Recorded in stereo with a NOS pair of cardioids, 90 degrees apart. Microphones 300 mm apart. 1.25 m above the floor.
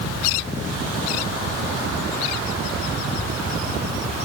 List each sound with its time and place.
Only background noise.